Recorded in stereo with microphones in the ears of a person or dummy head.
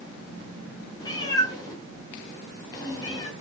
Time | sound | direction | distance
1.0 | a cat meowing | 20° left (ahead or behind) | 6 m